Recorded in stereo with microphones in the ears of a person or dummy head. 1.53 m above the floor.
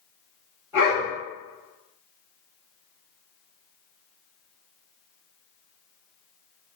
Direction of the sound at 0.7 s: 15° right (ahead or behind).